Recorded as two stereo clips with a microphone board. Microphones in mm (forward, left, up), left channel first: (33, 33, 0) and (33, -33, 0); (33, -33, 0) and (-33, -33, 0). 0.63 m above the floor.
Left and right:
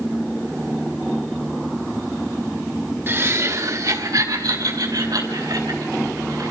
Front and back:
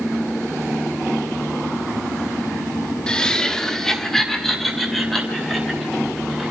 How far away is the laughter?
About 1.3 m.